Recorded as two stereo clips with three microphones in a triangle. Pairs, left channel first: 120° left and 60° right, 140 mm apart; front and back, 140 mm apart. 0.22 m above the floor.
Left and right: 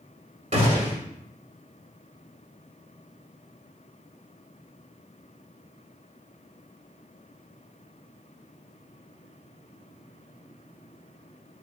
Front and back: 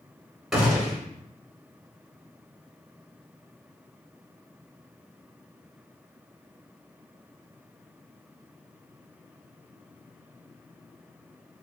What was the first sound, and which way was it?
A gunshot, 90° right.